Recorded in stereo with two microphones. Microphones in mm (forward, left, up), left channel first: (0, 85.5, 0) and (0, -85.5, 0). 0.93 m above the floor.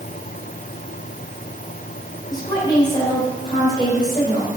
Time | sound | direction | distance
2.3 | a woman speaking | 25° left (ahead or behind) | 4.5 m